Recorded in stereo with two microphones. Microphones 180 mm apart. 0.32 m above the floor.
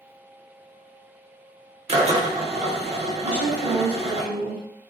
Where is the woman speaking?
5° right (ahead or behind), 1.3 m.